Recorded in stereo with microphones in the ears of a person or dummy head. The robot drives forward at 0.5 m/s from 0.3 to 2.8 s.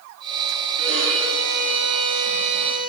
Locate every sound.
0.8 s a violin: 80° right, 8 m; by 2.9 s 75° right (ahead or behind), 8.5 m